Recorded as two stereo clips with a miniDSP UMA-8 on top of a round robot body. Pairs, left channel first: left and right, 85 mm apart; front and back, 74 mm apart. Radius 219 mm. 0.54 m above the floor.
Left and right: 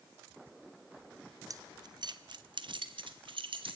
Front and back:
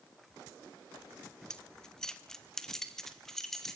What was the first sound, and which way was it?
Keys jangling, 75° right.